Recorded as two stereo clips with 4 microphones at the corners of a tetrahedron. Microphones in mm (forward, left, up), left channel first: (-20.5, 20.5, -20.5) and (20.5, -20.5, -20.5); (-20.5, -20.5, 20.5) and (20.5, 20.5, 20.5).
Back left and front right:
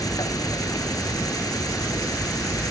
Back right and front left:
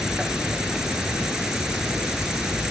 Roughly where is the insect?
Behind left.